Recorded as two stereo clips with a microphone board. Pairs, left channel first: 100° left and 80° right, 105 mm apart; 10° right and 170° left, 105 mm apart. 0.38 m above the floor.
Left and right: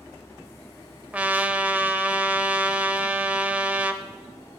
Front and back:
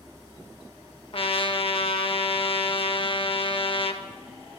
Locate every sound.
1.1 s a trumpet: 10° right, 0.5 m